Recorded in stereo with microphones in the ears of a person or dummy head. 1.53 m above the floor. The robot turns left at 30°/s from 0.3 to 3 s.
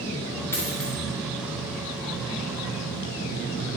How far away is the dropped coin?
About 1.8 m.